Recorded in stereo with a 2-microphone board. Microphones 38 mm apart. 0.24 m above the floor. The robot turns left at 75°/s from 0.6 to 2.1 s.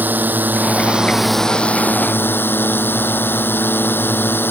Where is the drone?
130° right; by 4.5 s 120° left.